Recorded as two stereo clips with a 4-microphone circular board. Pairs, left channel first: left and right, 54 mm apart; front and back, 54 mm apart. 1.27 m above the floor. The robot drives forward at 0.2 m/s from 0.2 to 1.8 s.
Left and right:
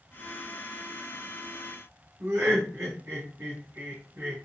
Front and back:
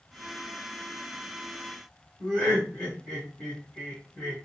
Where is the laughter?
90° right, 1.2 m.